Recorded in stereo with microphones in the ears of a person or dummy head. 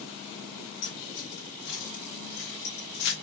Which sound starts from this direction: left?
Keys jangling, at 0.8 s.